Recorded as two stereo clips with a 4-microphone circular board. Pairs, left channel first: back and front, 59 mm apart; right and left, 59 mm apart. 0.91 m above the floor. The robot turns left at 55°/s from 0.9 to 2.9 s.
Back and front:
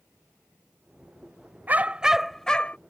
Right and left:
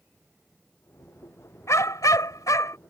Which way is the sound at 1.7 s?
55° right.